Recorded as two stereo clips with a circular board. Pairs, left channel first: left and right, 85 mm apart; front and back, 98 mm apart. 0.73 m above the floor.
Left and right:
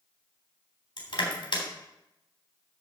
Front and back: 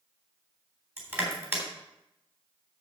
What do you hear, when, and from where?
1.0 s crushing: 110° left, 3.5 m